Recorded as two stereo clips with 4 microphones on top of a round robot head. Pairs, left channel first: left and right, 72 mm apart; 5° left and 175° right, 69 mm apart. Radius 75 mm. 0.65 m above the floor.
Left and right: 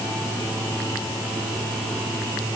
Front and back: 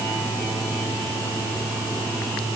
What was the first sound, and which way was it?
Only background noise.